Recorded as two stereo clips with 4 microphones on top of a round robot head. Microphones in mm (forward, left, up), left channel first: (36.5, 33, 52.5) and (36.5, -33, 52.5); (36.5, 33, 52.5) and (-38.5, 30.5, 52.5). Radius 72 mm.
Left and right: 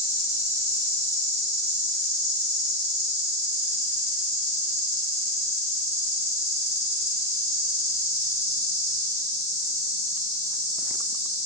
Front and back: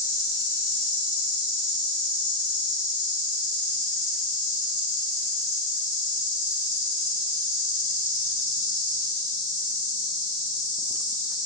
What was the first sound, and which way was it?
An insect, 45° left.